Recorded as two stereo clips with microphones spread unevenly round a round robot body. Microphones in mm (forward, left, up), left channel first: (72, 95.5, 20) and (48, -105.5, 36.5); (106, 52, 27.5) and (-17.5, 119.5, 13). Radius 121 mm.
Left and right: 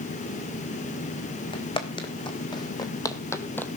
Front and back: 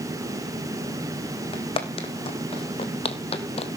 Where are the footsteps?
20° left, 3.5 m; by 3.8 s 5° right, 1.5 m.